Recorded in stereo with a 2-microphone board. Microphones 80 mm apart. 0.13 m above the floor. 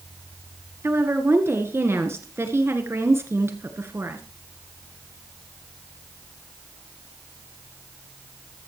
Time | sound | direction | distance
0.8 | a woman speaking | 35° right (ahead or behind) | 1.8 m